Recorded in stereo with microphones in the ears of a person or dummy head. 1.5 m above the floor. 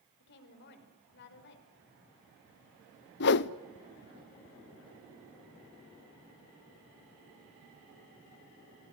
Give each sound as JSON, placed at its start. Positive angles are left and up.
{"t": 0.2, "sound": "a woman speaking", "side_deg": 60, "distance_m": 5.0}
{"t": 3.2, "sound": "a whoosh", "side_deg": 60, "distance_m": 0.8}